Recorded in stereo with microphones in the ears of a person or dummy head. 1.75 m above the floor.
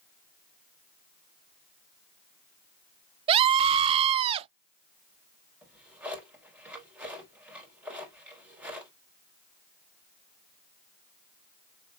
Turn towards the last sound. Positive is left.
turn(degrees=-15)  # may be behind; listen again after turning